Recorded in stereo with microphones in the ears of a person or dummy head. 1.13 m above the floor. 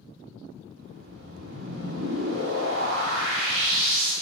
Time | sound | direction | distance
0.8 | a whoosh | 60° right (ahead or behind) | 7.5 m